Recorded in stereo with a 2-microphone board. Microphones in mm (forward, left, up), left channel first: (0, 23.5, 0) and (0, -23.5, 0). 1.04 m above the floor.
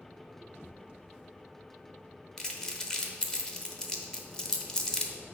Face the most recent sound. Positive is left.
turn(degrees=15)  # may be behind; listen again after turning